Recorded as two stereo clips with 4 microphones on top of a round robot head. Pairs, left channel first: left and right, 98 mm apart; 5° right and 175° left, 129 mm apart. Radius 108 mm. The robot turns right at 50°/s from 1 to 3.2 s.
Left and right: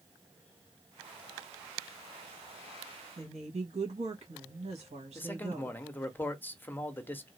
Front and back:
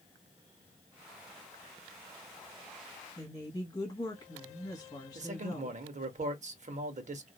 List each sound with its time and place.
3.2 s a woman speaking: 70° right, 1.4 m
5.2 s a man speaking: 160° left, 1.1 m